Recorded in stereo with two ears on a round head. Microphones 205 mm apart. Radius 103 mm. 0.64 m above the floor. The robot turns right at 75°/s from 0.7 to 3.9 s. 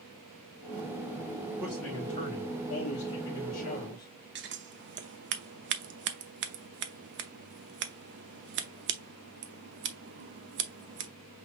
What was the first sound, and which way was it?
A man speaking, 15° right.